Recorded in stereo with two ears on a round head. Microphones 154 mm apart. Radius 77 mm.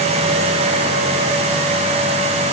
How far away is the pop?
I don't hear a pop.